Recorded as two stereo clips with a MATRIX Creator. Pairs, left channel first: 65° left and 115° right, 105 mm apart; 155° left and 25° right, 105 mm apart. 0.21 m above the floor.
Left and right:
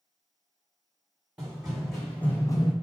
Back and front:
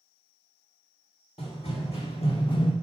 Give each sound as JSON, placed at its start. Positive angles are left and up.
{"t": 1.4, "sound": "running footsteps", "azimuth_deg": 170, "distance_m": 1.2}